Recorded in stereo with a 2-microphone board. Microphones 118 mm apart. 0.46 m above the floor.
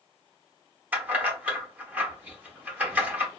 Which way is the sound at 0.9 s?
15° right (ahead or behind).